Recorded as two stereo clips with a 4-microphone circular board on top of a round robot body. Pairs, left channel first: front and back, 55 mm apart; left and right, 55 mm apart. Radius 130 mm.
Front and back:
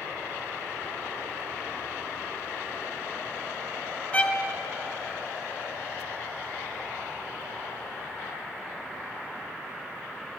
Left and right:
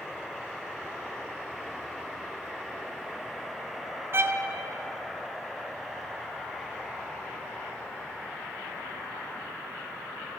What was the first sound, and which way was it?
A violin, 60° right.